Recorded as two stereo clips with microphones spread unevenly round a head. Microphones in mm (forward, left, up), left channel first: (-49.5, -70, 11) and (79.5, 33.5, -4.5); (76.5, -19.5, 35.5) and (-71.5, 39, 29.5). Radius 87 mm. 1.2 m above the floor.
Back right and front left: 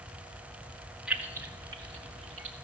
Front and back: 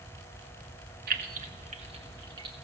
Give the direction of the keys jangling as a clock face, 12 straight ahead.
8 o'clock.